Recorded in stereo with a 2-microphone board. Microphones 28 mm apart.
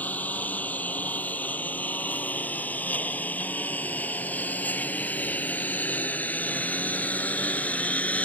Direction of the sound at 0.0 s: 75° left (ahead or behind).